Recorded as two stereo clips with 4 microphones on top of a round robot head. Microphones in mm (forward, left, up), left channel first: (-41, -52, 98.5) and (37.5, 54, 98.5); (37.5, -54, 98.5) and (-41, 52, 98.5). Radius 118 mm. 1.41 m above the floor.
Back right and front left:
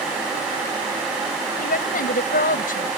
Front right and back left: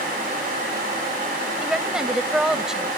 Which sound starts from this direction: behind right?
A woman speaking, at 1.6 s.